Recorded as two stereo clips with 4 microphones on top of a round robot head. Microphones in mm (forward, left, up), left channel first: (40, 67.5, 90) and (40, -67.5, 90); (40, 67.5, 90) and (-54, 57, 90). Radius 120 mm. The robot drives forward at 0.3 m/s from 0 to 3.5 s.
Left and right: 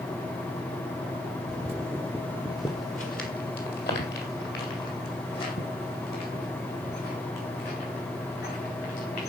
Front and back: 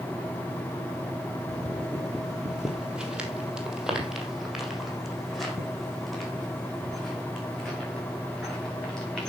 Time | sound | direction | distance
1.5 | footsteps | 75° right | 1.3 m